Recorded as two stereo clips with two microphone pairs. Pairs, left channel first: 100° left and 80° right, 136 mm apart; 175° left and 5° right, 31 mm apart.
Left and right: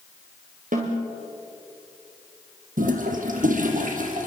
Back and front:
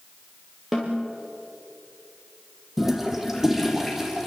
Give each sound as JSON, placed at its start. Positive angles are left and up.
{"t": 0.7, "sound": "a snare drum", "azimuth_deg": -90, "distance_m": 6.0}
{"t": 2.8, "sound": "a toilet flushing", "azimuth_deg": -90, "distance_m": 3.5}